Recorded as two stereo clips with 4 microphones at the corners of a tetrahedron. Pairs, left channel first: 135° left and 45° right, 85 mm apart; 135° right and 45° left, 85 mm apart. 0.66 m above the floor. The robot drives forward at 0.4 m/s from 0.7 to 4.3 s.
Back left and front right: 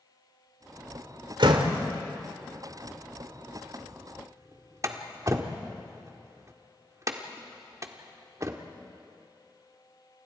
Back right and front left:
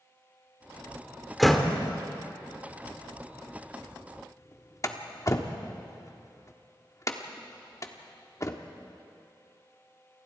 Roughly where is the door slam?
Ahead right.